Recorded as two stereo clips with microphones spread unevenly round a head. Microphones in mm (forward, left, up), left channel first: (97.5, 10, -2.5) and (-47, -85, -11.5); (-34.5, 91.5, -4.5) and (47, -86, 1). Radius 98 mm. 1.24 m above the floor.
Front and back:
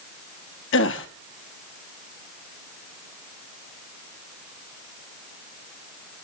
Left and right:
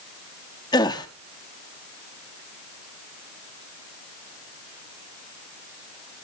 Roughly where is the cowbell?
I don't hear a cowbell.